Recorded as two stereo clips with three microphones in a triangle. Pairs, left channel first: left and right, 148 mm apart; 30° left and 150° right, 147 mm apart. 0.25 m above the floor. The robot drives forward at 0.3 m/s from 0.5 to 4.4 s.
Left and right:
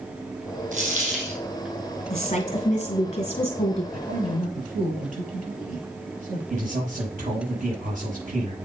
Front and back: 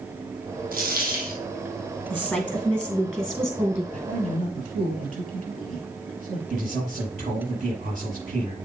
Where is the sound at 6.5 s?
120° right, 5.5 m.